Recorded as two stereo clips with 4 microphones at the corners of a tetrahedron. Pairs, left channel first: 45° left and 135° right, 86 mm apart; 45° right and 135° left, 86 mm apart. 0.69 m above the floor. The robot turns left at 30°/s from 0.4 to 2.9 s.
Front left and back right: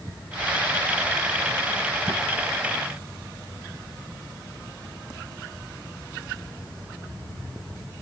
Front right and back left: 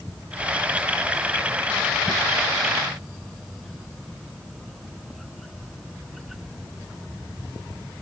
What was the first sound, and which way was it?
Only background noise.